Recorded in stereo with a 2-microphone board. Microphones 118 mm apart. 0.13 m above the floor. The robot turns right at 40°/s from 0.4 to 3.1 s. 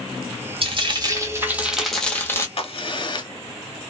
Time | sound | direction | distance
0.6 | frying | 50° right | 0.8 m
2.6 | a crack | 50° left (ahead or behind) | 0.7 m